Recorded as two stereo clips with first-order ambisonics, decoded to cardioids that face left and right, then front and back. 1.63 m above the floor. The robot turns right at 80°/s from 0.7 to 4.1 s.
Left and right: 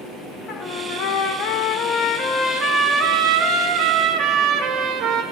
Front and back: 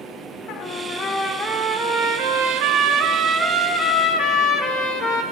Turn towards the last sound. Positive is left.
turn(degrees=-50)